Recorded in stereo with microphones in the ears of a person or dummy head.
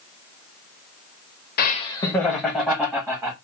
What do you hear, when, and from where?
1.6 s laughter: 55° left (ahead or behind), 0.5 m; by 3.3 s 10° right (ahead or behind), 1.6 m